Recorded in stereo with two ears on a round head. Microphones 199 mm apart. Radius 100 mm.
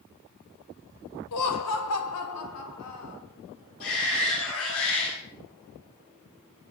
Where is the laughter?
85° left, 1.8 m.